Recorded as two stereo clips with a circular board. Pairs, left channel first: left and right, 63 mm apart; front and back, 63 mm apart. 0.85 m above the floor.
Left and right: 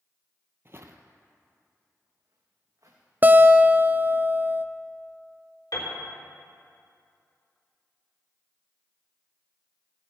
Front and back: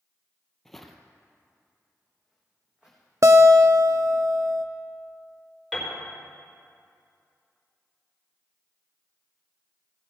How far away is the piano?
About 4 m.